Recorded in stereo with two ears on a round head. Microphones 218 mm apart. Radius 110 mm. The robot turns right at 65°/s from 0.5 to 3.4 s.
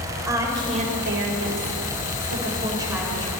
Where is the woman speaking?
165° right, 3.5 m; by 3.3 s 15° left, 3.5 m.